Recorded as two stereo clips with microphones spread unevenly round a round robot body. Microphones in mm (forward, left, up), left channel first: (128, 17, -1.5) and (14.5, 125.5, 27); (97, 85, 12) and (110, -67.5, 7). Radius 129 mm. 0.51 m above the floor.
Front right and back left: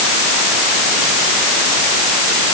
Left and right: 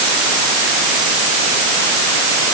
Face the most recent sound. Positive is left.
No sound to turn to.